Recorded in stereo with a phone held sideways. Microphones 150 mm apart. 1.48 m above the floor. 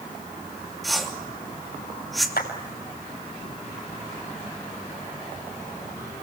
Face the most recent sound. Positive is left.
turn(degrees=85)